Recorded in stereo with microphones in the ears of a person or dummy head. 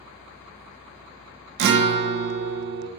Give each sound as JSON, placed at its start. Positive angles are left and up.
{"t": 1.6, "sound": "a guitar", "side_deg": -55, "distance_m": 0.6}